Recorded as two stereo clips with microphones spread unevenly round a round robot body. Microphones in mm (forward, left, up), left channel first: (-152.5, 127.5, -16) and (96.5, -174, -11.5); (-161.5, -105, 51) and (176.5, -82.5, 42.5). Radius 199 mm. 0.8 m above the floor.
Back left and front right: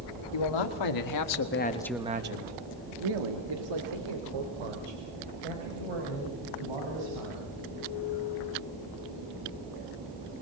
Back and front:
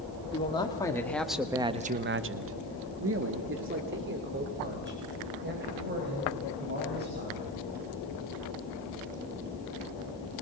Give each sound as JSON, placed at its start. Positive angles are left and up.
{"t": 0.3, "sound": "a man speaking", "azimuth_deg": 110, "distance_m": 2.5}